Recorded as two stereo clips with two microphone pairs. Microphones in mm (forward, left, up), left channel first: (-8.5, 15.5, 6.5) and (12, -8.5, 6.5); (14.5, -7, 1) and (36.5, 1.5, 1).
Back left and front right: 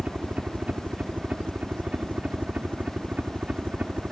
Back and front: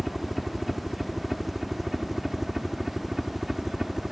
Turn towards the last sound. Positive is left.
turn(degrees=-45)